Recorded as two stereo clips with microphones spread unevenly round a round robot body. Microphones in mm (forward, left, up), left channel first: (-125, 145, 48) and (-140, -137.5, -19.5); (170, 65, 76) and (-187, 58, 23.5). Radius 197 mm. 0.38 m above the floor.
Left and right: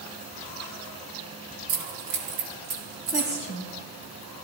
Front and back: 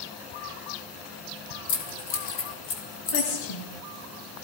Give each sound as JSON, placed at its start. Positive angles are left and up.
{"t": 1.7, "sound": "keys jangling", "azimuth_deg": -50, "distance_m": 3.0}
{"t": 3.1, "sound": "a woman speaking", "azimuth_deg": 10, "distance_m": 7.5}